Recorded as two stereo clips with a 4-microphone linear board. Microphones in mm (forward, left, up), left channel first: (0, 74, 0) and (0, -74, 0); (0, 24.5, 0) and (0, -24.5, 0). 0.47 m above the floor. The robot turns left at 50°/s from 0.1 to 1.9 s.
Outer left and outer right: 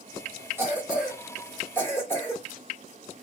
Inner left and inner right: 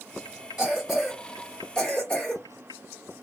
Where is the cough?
15° right (ahead or behind), 1.4 m; by 2.4 s 15° left (ahead or behind), 1.4 m.